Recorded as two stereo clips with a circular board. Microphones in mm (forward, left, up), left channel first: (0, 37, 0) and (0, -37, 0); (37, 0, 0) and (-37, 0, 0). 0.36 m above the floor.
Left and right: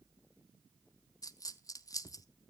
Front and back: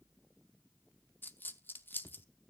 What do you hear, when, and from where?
1.2 s a dropped coin: 60° left, 0.6 m